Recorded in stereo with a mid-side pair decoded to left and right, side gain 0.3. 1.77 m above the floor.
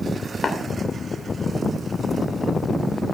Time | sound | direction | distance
0.4 | tapping | 55° left | 2.5 m